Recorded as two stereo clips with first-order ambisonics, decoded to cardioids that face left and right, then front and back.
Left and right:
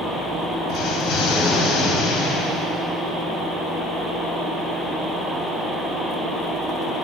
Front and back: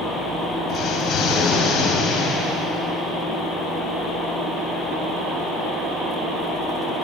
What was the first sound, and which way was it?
An explosion, 50° left.